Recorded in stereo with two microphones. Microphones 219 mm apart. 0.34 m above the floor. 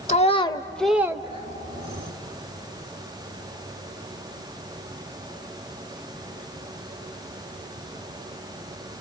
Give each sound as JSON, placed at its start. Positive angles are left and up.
{"t": 0.1, "sound": "a child speaking", "side_deg": 35, "distance_m": 0.7}